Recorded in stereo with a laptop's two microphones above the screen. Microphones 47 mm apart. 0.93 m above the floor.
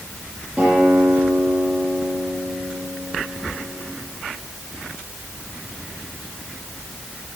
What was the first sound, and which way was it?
A guitar, 10° right (ahead or behind).